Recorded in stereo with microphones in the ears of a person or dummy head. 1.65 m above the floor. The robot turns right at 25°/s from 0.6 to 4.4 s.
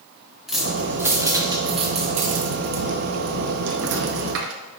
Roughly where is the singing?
I don't hear singing.